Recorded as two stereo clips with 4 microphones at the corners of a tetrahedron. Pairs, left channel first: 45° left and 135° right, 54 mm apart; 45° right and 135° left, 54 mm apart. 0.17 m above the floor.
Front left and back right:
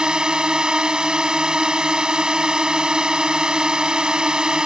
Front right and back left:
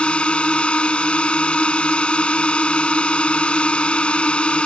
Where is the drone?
85° right.